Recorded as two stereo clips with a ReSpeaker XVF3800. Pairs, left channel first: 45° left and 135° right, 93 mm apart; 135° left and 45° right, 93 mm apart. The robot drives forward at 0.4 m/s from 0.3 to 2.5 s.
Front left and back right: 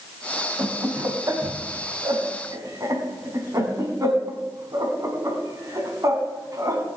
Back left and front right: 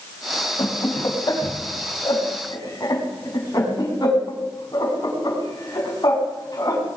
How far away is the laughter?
About 2.5 m.